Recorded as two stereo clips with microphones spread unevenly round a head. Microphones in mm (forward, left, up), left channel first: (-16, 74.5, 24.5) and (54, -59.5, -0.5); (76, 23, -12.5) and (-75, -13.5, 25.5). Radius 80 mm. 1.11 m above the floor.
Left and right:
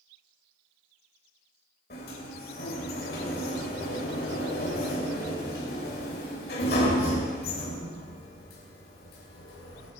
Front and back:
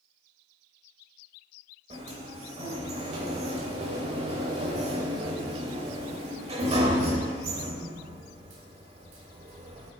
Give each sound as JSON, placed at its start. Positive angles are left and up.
{"t": 1.9, "sound": "a sliding door", "azimuth_deg": 145, "distance_m": 2.5}